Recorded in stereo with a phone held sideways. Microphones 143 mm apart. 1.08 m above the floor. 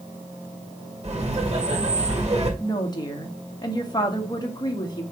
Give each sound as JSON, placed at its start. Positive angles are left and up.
{"t": 1.0, "sound": "laughter", "side_deg": -45, "distance_m": 2.0}
{"t": 2.6, "sound": "a woman speaking", "side_deg": 30, "distance_m": 1.4}